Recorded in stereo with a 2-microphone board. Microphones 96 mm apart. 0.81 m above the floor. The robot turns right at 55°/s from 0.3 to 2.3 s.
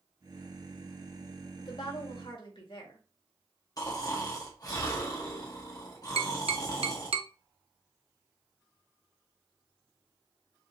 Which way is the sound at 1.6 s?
50° left.